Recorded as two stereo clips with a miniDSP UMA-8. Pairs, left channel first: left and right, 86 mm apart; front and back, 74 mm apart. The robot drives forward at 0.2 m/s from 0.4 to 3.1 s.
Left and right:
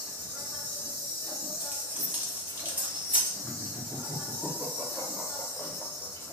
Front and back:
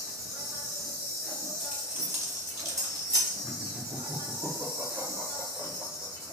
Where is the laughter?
Straight behind, 0.9 m.